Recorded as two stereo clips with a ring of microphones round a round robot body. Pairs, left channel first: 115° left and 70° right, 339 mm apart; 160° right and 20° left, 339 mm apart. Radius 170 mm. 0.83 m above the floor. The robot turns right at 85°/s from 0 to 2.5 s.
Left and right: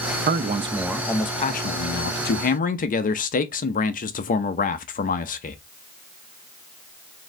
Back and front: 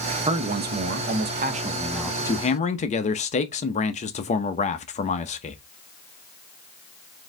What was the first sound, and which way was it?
A man speaking, 35° right.